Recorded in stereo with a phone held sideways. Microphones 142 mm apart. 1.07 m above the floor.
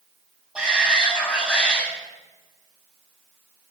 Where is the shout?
5° right (ahead or behind), 7 m.